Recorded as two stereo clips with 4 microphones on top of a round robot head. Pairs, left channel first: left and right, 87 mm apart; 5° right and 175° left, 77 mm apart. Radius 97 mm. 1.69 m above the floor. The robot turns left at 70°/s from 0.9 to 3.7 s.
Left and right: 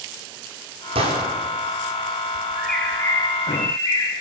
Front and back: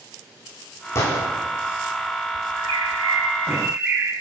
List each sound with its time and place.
0.9 s a gunshot: 65° right, 5 m; by 1.3 s 95° right, 5 m
2.5 s a bird: 175° right, 8 m; by 4.1 s 105° left, 8 m